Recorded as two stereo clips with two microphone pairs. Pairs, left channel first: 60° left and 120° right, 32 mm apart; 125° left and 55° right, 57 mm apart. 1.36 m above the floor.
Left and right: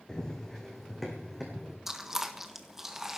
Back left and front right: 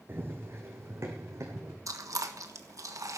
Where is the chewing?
40° right, 1.4 m.